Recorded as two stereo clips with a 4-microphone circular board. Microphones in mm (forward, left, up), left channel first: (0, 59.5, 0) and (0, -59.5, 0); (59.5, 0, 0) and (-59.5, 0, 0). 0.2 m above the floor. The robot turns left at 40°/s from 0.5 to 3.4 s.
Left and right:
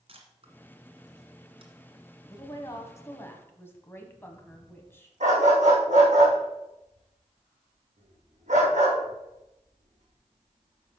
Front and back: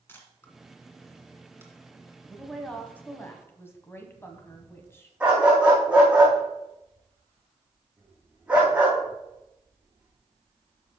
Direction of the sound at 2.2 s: 90° left.